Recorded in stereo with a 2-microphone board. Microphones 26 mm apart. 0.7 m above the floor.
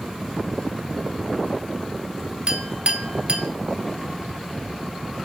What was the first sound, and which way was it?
A clink, 35° right (ahead or behind).